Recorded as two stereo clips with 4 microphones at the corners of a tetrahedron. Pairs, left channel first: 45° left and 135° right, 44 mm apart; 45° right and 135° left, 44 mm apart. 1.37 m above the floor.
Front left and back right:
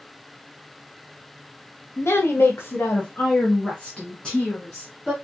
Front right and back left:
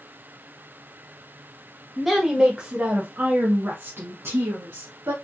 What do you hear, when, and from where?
2.0 s a woman speaking: 50° left, 1.4 m; by 5.1 s 130° left, 1.8 m